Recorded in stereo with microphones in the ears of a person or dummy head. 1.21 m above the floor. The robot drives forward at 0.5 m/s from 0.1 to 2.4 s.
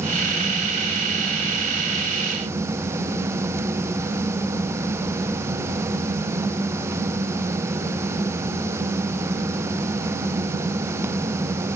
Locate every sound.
Only background noise.